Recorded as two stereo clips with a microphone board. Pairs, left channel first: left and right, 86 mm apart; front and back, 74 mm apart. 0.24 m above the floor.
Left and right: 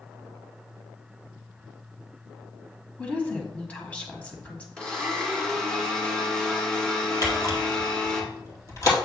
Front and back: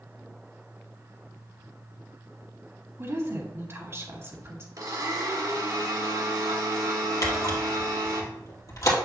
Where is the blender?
165° left, 2 m.